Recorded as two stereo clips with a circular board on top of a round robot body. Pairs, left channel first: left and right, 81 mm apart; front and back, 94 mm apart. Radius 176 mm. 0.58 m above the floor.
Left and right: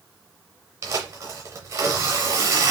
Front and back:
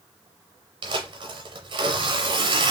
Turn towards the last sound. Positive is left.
turn(degrees=-150)